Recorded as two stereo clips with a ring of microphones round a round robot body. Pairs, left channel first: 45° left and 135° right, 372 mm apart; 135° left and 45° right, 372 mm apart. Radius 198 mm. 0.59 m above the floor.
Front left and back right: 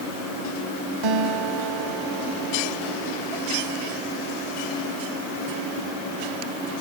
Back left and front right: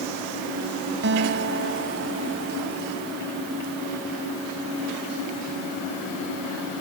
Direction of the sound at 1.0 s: 105° right.